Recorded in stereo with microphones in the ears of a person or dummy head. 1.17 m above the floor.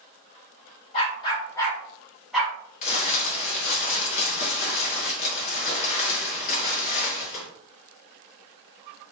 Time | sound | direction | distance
0.9 | a dog barking | 35° left (ahead or behind) | 1.4 m
2.8 | crumpling | 45° left (ahead or behind) | 1.8 m